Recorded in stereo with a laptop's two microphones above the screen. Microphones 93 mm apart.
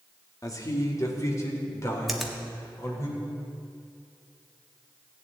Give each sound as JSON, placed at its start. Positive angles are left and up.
{"t": 0.4, "sound": "a man speaking", "side_deg": 40, "distance_m": 1.9}
{"t": 2.1, "sound": "a finger snap", "side_deg": 0, "distance_m": 1.6}